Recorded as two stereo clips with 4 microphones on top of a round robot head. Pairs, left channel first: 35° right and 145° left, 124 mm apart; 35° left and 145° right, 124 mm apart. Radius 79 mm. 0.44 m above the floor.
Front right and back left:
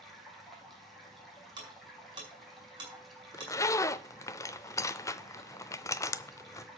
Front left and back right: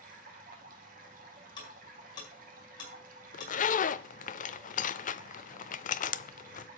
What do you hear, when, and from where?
0.0 s running water: 125° right, 2.5 m
1.6 s ticking: 90° left, 5.5 m
3.3 s a zipper: 30° left, 0.6 m